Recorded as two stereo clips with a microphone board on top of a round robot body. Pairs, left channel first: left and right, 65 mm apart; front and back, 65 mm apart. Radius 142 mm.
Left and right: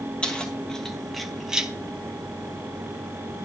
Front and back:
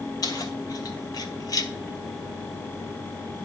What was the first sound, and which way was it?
Keys jangling, 15° left.